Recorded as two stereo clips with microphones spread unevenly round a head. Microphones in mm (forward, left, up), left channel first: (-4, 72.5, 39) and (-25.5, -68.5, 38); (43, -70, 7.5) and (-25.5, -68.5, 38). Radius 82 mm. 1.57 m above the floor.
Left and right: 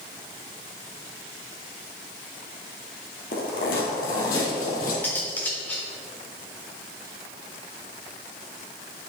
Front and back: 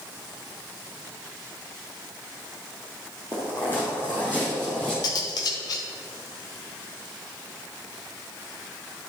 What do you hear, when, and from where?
3.3 s footsteps: 85° left, 2.5 m; by 4.9 s 100° left, 3 m
5.0 s cutlery clinking: 15° left, 1.0 m